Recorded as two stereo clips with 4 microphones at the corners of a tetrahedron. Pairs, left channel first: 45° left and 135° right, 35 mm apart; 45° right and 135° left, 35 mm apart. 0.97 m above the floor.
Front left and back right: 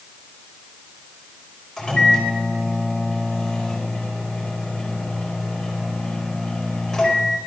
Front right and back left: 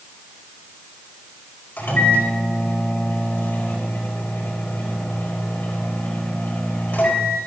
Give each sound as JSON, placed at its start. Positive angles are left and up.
{"t": 1.8, "sound": "a microwave", "azimuth_deg": -30, "distance_m": 4.5}